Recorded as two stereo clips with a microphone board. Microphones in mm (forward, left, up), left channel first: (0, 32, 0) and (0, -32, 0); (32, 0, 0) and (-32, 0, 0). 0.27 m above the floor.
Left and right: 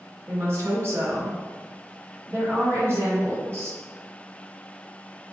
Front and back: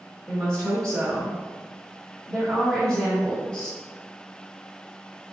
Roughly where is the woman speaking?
Right.